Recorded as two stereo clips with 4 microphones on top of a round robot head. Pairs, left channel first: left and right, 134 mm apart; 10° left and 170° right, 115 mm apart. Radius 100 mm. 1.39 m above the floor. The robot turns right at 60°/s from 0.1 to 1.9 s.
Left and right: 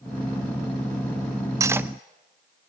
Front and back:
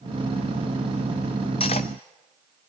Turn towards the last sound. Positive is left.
turn(degrees=-15)